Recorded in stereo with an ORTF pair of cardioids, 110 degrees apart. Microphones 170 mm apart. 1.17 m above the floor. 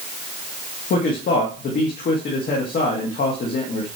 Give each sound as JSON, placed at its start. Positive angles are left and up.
{"t": 0.9, "sound": "a man speaking", "azimuth_deg": 65, "distance_m": 2.0}